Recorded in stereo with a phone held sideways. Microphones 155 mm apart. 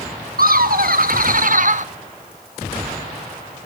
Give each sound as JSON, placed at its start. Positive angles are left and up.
{"t": 0.4, "sound": "laughter", "side_deg": -70, "distance_m": 1.4}